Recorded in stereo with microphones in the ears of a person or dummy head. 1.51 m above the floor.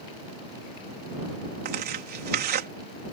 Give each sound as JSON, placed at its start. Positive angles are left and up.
{"t": 1.6, "sound": "tearing paper", "side_deg": -50}